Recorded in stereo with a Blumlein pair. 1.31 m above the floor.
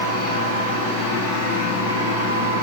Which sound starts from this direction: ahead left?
A machine running, at 0.0 s.